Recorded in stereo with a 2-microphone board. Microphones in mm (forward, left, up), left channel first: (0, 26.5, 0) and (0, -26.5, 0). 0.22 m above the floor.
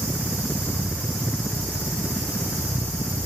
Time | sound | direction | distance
0.0 | a helicopter | 25° left (ahead or behind) | ?